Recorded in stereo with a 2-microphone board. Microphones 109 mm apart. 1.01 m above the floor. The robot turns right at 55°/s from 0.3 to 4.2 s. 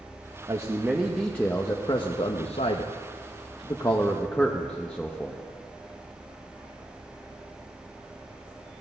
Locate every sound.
0.5 s a man speaking: 35° right, 0.8 m; by 5.4 s 170° left, 0.8 m